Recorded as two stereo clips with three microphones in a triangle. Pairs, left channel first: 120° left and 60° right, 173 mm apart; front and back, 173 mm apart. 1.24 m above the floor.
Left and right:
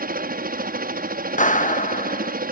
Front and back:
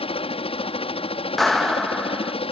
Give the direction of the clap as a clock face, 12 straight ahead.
9 o'clock.